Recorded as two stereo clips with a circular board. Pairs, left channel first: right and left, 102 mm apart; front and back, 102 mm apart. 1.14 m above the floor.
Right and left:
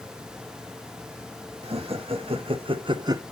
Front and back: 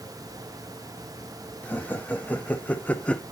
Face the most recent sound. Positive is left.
turn(degrees=70)